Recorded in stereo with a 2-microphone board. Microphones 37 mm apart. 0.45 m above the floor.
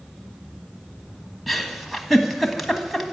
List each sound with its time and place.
1.5 s a giggle: centre (ahead or behind), 1.4 m